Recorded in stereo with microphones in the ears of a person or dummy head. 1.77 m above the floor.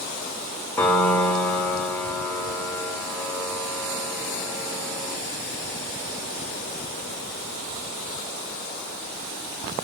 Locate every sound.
0.8 s a piano: 10° left (ahead or behind), 5.5 m